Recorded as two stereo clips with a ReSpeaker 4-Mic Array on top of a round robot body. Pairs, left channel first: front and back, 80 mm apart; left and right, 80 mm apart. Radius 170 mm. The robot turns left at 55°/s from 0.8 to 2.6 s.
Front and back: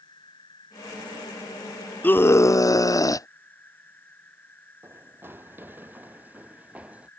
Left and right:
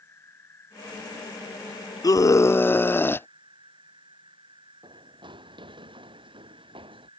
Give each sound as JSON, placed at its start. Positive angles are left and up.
{"t": 0.0, "sound": "an insect", "azimuth_deg": 30}
{"t": 2.0, "sound": "a scream", "azimuth_deg": 65}
{"t": 4.8, "sound": "running footsteps", "azimuth_deg": -115}